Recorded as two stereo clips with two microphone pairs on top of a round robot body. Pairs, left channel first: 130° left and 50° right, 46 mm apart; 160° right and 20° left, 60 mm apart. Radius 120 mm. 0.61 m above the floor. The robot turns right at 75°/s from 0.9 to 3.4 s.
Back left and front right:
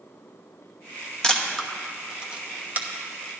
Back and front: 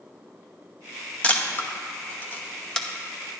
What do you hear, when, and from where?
1.2 s a camera shutter: 155° left, 1.2 m; by 2.9 s 85° right, 1.2 m